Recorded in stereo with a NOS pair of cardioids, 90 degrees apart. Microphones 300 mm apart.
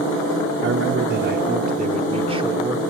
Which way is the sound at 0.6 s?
45° right.